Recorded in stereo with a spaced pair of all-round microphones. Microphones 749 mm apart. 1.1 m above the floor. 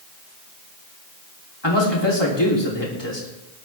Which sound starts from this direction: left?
A man speaking, at 1.6 s.